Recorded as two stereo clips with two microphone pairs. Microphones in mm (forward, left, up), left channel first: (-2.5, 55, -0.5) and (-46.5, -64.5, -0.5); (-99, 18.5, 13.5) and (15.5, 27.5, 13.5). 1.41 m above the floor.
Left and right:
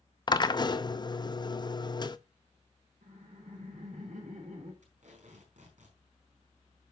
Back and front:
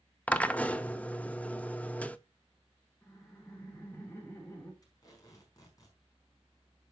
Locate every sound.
0.3 s a drill: 115° left, 0.6 m
3.0 s laughter: 105° right, 2.5 m
4.8 s tape being pulled: 120° right, 4.5 m